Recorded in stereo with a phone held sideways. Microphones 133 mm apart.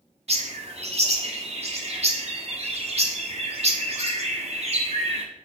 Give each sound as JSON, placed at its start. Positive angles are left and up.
{"t": 0.3, "sound": "a bird", "side_deg": -50, "distance_m": 1.1}